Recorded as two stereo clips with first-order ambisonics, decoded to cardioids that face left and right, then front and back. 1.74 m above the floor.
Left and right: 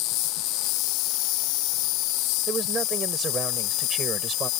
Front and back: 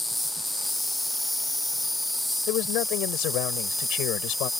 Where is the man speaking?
20° right.